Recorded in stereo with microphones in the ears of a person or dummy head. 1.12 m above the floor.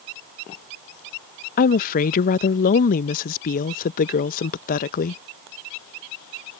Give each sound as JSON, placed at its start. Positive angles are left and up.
{"t": 1.6, "sound": "a woman speaking", "side_deg": 50}